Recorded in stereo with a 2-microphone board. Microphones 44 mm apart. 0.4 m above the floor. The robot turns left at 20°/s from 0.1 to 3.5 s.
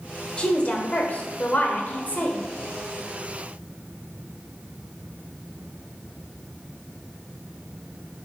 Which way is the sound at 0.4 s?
140° left.